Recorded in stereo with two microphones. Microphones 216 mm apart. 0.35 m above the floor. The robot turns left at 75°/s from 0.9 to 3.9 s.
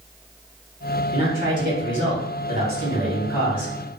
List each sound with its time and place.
1.1 s a man speaking: 25° right, 1.6 m; by 3.7 s 135° left, 1.6 m